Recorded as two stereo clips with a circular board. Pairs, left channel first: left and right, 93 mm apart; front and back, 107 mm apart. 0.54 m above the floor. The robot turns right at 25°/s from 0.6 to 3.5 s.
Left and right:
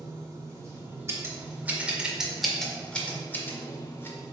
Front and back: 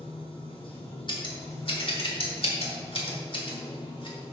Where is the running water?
35° right, 1.7 m; by 4.3 s 40° left, 1.7 m.